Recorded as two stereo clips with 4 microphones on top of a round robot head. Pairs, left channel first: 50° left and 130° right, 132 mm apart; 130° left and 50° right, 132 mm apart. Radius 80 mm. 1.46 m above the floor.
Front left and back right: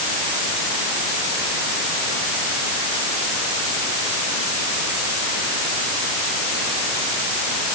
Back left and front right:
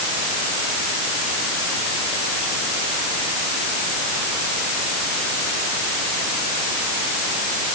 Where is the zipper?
I don't hear a zipper.